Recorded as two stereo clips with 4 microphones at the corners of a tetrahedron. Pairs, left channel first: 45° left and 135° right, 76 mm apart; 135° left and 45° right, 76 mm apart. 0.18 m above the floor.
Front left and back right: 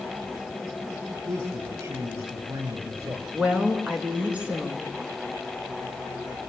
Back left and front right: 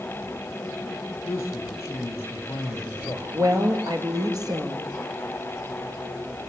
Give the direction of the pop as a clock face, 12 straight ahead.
I don't hear a pop.